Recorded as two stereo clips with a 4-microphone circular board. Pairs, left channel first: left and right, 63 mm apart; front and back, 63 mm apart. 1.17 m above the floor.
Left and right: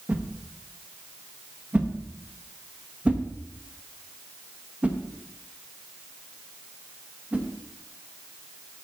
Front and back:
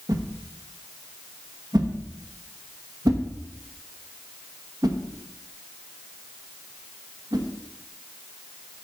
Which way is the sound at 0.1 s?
160° right.